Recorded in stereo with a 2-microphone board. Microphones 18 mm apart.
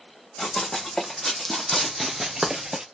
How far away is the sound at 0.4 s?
About 1.5 m.